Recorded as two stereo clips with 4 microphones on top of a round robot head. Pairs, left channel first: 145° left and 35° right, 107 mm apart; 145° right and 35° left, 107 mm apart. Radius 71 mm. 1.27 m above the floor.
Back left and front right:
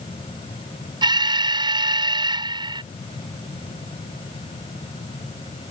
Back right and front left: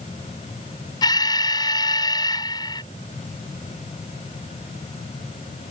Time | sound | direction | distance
1.0 | an alarm | 90° right | ?